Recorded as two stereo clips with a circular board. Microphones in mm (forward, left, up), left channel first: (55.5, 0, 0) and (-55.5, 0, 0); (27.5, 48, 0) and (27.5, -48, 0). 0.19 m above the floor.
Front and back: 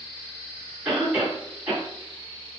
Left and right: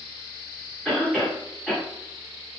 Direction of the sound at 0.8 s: 145° left.